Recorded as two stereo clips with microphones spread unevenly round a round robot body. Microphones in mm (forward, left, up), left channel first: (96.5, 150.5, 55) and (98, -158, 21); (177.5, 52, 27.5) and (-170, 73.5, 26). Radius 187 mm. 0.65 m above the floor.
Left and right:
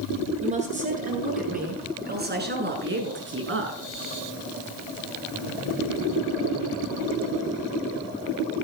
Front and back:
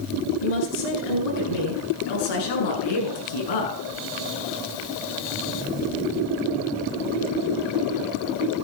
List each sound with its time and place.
0.4 s a woman speaking: 20° right, 9 m; by 3.8 s 40° right, 7 m